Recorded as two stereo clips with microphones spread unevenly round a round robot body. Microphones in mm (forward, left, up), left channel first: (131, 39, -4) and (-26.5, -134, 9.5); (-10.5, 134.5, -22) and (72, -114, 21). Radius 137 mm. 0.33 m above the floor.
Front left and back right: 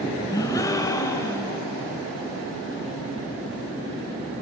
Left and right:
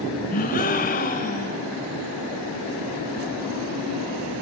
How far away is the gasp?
About 1.0 m.